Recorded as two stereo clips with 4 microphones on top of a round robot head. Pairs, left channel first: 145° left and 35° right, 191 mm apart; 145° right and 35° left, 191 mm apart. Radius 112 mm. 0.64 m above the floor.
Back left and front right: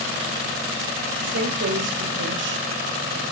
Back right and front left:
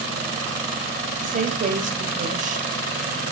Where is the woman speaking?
15° right, 3.5 m.